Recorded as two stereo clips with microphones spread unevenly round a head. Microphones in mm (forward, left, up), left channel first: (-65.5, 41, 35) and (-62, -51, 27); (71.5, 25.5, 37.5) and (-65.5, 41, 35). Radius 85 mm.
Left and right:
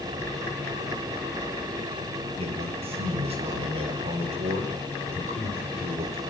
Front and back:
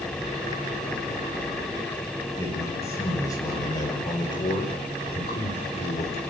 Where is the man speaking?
80° right, 6 m; by 6.2 s 55° right, 4.5 m.